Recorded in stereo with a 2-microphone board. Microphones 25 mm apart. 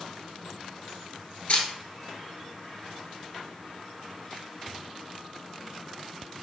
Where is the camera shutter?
60° left (ahead or behind), 0.8 m.